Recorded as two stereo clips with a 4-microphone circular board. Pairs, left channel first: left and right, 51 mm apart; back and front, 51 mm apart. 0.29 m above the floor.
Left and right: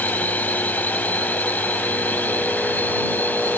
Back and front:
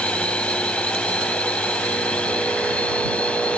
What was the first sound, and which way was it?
A drone, 125° left.